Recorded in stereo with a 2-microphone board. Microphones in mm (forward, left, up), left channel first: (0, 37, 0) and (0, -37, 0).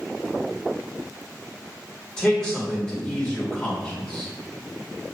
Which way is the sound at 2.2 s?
10° left (ahead or behind).